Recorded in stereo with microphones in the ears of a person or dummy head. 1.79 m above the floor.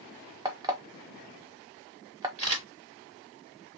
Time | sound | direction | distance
0.5 | an alarm clock | 20° right (ahead or behind) | 0.9 m
2.4 | a camera shutter | 35° right (ahead or behind) | 2.5 m